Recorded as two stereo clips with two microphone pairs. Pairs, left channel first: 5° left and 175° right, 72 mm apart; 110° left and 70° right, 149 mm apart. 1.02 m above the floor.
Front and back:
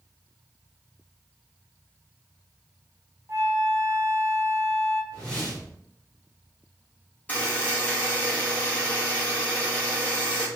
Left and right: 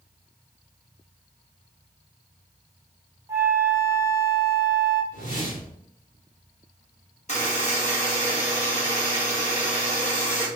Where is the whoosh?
85° left, 1.5 m.